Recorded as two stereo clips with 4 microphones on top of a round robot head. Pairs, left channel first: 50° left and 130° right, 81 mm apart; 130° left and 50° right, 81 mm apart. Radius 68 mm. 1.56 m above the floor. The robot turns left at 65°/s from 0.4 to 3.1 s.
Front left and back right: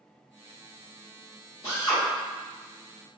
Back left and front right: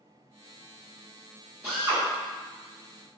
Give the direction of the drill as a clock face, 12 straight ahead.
11 o'clock.